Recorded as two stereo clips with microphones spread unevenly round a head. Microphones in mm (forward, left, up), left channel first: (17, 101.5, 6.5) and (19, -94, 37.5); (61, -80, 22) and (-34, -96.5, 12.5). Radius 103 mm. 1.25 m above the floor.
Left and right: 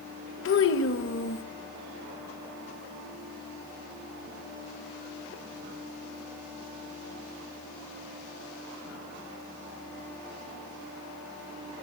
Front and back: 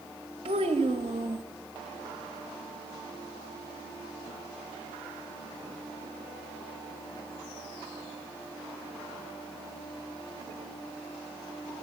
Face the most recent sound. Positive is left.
turn(degrees=125)